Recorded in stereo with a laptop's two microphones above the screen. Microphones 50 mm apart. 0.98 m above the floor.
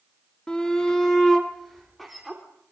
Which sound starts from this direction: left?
A shout, at 0.5 s.